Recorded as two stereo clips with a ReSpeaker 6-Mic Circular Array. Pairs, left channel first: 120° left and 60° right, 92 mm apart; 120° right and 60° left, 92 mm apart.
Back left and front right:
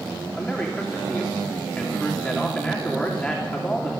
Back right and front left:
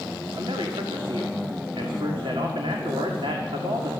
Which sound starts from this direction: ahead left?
A man speaking, at 0.4 s.